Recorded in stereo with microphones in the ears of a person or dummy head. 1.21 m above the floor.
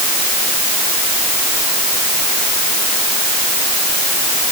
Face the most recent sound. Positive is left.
No sound to turn to.